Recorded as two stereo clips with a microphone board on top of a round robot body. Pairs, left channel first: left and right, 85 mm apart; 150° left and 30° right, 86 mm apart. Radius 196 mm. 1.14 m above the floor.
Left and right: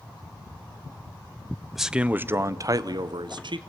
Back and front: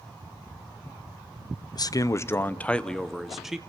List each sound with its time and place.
1.8 s a man speaking: 175° right, 0.8 m; by 3.6 s 115° right, 1.3 m